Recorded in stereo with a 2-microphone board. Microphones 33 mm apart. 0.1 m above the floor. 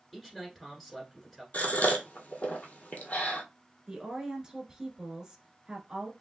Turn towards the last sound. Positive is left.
turn(degrees=-20)  # may be behind; listen again after turning